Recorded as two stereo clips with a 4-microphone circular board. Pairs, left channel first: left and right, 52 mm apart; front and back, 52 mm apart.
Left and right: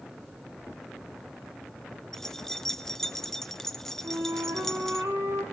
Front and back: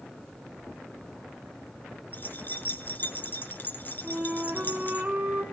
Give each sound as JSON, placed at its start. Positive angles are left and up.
{"t": 2.1, "sound": "keys jangling", "azimuth_deg": 15, "distance_m": 0.9}
{"t": 4.0, "sound": "a flute", "azimuth_deg": -115, "distance_m": 5.0}